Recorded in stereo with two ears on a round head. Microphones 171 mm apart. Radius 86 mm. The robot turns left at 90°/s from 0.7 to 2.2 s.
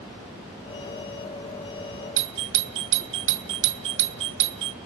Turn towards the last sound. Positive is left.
turn(degrees=-70)  # may be behind; listen again after turning